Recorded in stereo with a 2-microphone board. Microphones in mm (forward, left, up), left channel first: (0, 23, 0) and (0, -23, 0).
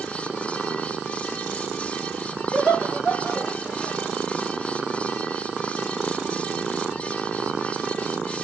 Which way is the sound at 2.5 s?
45° left (ahead or behind).